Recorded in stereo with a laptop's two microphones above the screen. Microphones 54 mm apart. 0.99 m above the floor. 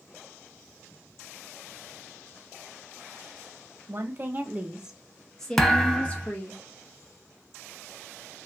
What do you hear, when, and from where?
3.9 s a woman speaking: 50° right (ahead or behind), 1.0 m; by 6.6 s 35° left (ahead or behind), 1.4 m
5.6 s a thud: 10° left (ahead or behind), 0.6 m